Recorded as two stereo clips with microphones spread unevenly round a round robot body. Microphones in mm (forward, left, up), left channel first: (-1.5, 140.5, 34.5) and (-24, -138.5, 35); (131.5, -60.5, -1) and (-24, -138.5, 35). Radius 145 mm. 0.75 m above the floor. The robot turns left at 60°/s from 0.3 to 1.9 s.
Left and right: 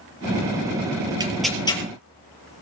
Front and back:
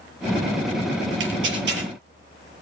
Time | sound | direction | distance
1.2 | tearing paper | 170° right | 4.5 m